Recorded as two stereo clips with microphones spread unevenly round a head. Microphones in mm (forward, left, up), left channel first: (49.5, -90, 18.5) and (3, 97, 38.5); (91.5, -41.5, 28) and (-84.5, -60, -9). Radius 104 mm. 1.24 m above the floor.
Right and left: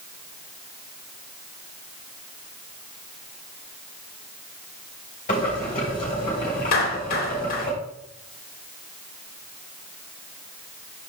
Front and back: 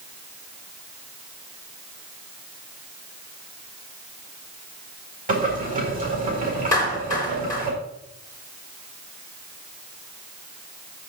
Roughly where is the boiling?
Behind right.